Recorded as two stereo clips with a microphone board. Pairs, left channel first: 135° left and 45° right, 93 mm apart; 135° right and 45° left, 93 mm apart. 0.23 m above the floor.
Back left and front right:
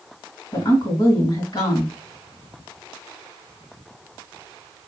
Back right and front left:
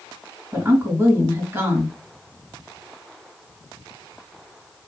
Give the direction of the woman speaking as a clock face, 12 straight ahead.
9 o'clock.